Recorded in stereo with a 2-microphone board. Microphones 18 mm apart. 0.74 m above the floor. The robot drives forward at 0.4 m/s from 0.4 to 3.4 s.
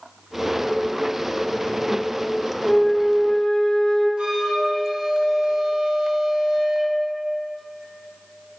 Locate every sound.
2.6 s a flute: 45° left (ahead or behind), 2 m; by 4.1 s 55° left (ahead or behind), 1.9 m
4.2 s a flute: 75° right (ahead or behind), 1.4 m